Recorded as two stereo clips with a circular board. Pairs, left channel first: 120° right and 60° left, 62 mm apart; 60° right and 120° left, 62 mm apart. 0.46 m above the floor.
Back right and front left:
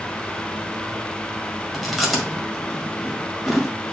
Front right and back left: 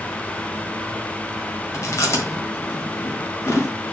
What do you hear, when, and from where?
1.7 s chewing: 30° right, 1.7 m